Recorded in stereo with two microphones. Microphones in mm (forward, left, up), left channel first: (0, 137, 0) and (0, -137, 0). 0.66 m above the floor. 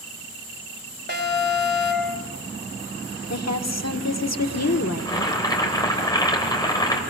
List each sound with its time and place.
1.1 s an alarm: 40° right (ahead or behind), 3.5 m
3.3 s a woman speaking: 70° left (ahead or behind), 1.4 m
5.0 s boiling: 15° left (ahead or behind), 3.5 m